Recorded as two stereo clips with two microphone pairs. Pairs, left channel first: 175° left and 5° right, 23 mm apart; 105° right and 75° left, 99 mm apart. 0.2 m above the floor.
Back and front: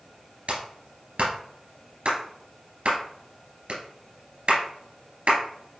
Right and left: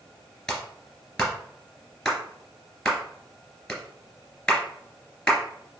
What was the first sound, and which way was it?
A clap, 20° right.